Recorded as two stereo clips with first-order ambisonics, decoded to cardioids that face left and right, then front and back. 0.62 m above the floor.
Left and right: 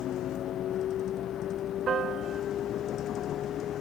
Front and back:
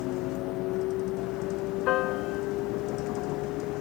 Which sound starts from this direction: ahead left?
A vehicle, at 0.0 s.